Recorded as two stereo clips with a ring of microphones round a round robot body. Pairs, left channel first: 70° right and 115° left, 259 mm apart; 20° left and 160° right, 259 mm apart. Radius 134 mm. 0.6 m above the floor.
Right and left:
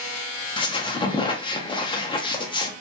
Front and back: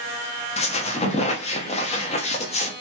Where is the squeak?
15° right, 0.5 m.